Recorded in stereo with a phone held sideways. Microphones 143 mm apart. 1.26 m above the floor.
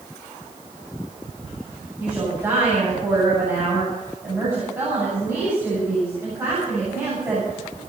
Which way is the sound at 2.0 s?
20° right (ahead or behind).